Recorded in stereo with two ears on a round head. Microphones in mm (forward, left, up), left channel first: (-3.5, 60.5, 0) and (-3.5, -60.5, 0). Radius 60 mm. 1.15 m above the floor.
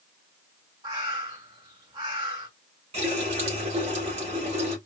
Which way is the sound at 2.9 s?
50° right (ahead or behind).